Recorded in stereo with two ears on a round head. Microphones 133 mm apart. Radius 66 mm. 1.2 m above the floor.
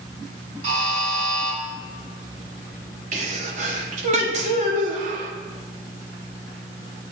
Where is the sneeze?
50° right (ahead or behind), 0.9 m.